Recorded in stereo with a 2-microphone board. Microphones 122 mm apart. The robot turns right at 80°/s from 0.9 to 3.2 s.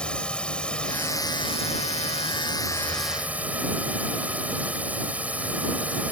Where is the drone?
10° left; by 6.1 s 170° right.